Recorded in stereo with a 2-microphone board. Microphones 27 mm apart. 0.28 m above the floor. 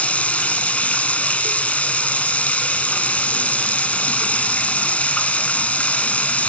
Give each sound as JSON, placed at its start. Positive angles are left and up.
{"t": 0.0, "sound": "running water", "side_deg": 65, "distance_m": 0.9}